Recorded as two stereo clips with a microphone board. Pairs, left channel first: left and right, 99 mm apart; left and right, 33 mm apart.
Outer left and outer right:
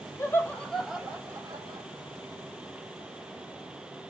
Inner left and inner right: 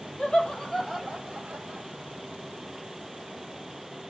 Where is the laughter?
30° left (ahead or behind), 0.9 m; by 1.9 s 50° right (ahead or behind), 1.1 m.